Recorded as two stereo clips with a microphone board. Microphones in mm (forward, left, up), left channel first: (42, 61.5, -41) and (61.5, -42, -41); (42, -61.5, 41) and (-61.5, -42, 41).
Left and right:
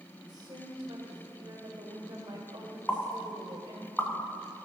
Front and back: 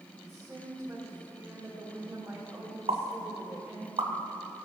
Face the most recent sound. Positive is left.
turn(degrees=180)